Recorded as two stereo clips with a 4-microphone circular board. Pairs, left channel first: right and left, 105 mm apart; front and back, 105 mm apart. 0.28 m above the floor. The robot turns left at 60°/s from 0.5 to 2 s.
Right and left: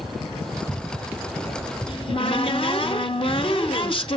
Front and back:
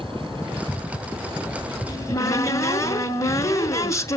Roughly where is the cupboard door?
Ahead right.